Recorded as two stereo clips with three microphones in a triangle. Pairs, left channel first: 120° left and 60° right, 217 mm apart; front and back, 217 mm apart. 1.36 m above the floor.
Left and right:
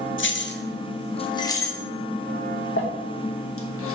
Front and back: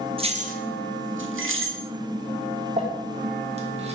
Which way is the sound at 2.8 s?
120° left.